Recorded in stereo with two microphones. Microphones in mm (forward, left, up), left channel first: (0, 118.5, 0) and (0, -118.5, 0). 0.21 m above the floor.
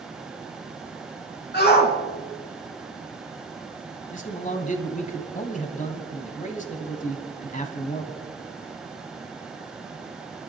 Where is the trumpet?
I don't hear a trumpet.